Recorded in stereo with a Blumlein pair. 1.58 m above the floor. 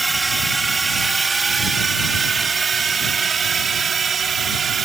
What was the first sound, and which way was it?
A drone, 10° right.